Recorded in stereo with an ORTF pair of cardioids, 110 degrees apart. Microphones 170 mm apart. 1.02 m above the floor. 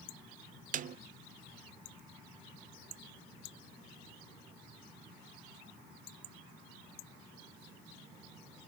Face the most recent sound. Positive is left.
turn(degrees=-50)